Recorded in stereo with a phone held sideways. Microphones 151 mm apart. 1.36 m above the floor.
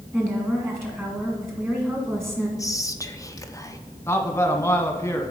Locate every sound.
0.1 s a woman speaking: 15° right (ahead or behind), 1.8 m
2.6 s whispering: 20° left (ahead or behind), 0.5 m
4.1 s a man speaking: 15° left (ahead or behind), 0.8 m